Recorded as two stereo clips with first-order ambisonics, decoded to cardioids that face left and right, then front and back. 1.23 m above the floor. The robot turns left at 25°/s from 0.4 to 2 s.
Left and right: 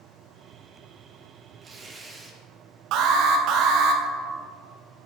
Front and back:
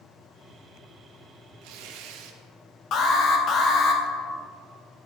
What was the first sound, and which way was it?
Tearing paper, 160° right.